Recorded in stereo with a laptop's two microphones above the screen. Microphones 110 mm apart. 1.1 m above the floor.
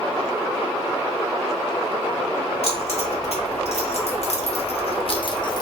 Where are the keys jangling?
65° left (ahead or behind), 1.6 m; by 5.6 s 35° left (ahead or behind), 0.8 m.